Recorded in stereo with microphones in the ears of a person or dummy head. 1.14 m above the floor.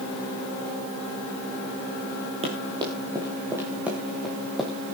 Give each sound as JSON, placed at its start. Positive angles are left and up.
{"t": 2.4, "sound": "running footsteps", "side_deg": -30, "distance_m": 2.5}